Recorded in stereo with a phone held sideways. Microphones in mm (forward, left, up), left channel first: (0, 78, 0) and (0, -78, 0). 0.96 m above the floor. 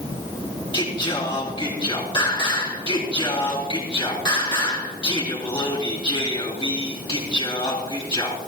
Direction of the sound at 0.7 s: 30° left (ahead or behind).